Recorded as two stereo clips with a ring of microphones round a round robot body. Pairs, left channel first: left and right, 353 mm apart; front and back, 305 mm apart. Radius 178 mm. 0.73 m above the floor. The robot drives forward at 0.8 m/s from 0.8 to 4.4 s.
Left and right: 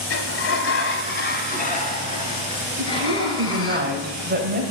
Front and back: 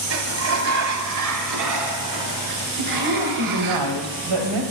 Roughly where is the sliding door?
Behind left.